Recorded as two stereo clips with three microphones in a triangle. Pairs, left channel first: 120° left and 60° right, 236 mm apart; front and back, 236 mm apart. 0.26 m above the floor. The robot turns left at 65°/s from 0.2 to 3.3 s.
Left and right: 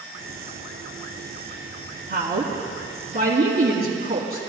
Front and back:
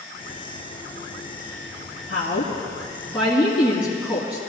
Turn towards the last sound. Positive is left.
turn(degrees=-95)